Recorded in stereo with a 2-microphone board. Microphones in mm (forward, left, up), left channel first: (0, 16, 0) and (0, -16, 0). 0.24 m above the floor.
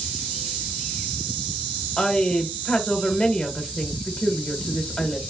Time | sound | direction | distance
2.0 | a woman speaking | 20° left (ahead or behind) | 1.3 m